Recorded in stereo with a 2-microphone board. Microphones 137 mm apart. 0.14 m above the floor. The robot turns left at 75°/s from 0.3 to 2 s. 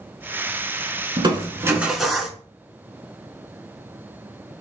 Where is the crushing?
115° right, 0.8 m; by 2.4 s 175° right, 0.8 m.